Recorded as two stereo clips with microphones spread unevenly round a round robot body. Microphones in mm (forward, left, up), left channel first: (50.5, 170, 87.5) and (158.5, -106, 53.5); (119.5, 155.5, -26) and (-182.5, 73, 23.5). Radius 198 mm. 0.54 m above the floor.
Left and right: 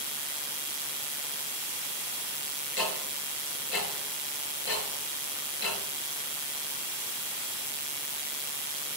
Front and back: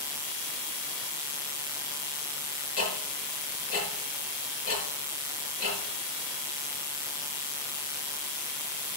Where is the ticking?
60° left, 6 m.